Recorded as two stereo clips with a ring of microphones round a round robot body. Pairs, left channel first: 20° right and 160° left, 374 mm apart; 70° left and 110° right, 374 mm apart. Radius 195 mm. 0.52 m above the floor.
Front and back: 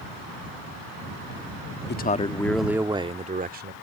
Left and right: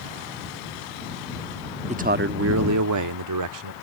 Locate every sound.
1.9 s a man speaking: 55° right; by 3.7 s 140° right